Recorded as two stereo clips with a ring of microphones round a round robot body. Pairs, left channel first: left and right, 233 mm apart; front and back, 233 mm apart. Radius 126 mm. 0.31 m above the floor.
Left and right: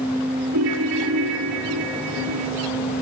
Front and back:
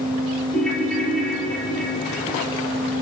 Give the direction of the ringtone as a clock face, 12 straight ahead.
3 o'clock.